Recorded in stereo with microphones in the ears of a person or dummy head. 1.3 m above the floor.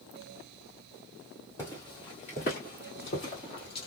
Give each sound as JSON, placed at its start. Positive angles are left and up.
{"t": 1.6, "sound": "footsteps", "side_deg": 10, "distance_m": 1.3}